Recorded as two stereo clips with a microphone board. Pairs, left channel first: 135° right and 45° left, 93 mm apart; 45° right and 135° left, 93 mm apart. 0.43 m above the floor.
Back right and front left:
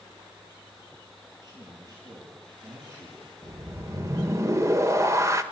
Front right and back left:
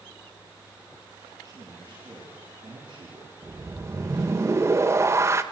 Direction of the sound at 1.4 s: 85° left.